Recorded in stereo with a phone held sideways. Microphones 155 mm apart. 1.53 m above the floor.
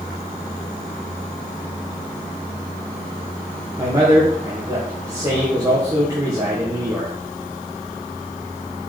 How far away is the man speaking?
About 1.6 m.